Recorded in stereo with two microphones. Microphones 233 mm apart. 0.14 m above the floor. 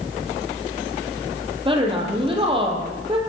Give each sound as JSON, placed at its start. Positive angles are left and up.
{"t": 1.6, "sound": "a woman speaking", "side_deg": -25, "distance_m": 4.5}